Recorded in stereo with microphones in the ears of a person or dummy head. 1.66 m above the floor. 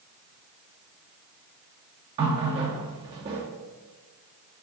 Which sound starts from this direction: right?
A running tap, at 2.2 s.